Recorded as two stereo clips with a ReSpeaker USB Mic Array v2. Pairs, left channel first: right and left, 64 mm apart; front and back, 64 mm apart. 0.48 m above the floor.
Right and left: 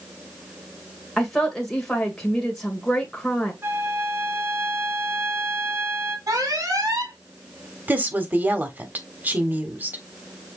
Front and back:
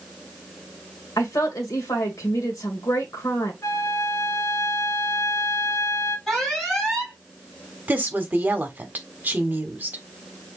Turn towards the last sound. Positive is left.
turn(degrees=135)